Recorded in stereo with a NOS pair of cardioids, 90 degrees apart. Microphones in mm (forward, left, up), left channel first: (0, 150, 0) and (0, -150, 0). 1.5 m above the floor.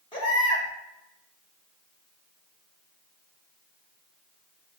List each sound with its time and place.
0.1 s a baby crying: 15° left, 1.9 m